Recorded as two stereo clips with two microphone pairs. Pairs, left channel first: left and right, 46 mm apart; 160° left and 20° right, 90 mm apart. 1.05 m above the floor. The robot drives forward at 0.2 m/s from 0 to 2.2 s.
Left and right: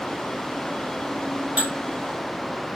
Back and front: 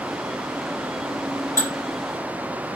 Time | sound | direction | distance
1.6 | dishes clattering | 145° right | 1.1 m